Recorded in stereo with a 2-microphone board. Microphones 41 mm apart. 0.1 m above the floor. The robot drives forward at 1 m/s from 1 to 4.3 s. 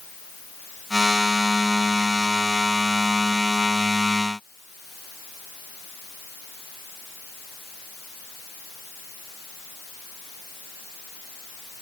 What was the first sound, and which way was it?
Only background noise.